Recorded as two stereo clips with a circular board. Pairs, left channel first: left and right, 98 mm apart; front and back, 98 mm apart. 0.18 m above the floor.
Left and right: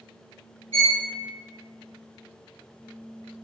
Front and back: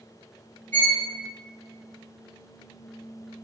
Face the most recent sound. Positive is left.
turn(degrees=-70)